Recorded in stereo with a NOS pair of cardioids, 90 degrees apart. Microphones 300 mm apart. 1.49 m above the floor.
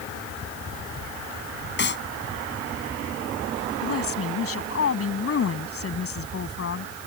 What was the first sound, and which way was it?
A clap, 35° left.